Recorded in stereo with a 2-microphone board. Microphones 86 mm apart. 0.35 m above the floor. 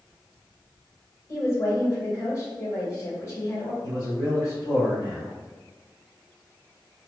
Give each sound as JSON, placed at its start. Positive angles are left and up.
{"t": 1.3, "sound": "a woman speaking", "side_deg": 40, "distance_m": 1.2}
{"t": 3.8, "sound": "a man speaking", "side_deg": 35, "distance_m": 1.8}